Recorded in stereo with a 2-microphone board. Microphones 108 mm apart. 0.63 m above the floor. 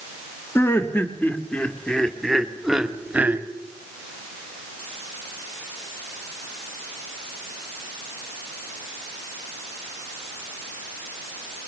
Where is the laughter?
25° left (ahead or behind), 2.5 m; by 3.5 s 15° right (ahead or behind), 1.8 m.